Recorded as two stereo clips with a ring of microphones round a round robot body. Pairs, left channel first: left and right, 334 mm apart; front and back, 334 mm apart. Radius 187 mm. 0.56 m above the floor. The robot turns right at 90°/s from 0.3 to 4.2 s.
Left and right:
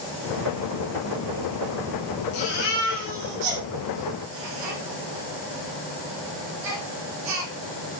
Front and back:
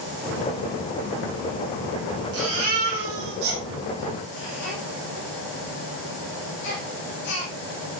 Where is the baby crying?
130° left, 9.5 m; by 7.5 s 65° right, 9.5 m.